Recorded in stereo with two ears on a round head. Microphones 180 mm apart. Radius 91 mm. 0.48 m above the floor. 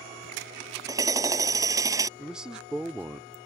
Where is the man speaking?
5° right (ahead or behind).